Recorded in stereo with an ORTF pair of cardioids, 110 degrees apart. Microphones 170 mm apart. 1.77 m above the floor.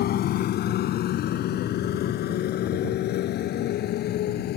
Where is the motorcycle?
70° left; by 4.6 s 75° left.